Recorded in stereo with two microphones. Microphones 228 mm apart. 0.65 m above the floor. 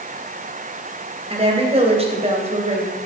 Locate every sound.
1.3 s a woman speaking: 25° right (ahead or behind), 3 m